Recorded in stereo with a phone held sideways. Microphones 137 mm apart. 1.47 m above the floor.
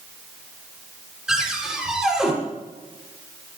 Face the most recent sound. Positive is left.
turn(degrees=-5)  # may be behind; listen again after turning